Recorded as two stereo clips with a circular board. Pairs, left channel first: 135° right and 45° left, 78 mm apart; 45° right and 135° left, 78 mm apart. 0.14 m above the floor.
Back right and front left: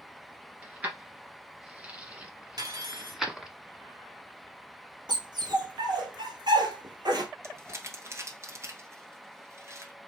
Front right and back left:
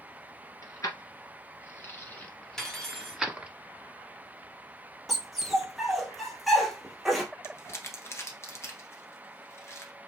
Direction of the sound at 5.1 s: 45° left.